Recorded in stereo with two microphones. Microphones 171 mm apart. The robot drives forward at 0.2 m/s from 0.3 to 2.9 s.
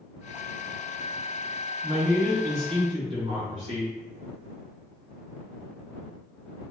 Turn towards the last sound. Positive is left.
turn(degrees=-35)  # may be behind; listen again after turning